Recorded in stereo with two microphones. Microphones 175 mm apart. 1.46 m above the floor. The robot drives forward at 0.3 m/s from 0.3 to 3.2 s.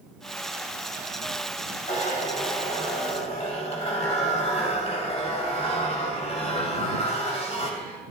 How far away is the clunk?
No clunk in this recording.